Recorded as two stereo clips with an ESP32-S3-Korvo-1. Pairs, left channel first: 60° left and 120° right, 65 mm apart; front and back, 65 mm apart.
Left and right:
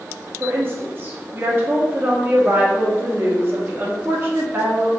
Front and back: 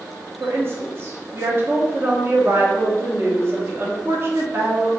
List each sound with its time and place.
0.4 s a woman speaking: 150° right, 0.9 m